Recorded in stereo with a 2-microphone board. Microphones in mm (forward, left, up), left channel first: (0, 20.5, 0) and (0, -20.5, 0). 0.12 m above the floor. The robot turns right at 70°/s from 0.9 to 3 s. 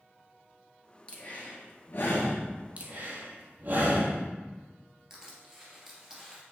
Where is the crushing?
15° right (ahead or behind), 2 m.